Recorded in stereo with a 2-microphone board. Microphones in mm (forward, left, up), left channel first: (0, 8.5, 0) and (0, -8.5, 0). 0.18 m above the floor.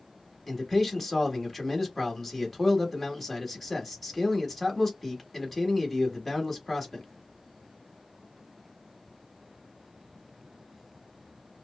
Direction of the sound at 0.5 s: Centre (ahead or behind).